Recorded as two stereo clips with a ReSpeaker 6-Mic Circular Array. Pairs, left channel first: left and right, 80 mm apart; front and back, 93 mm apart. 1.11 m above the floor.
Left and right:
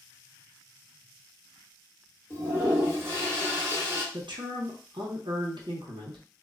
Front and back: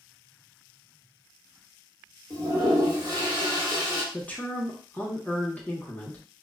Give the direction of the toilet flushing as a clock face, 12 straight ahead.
5 o'clock.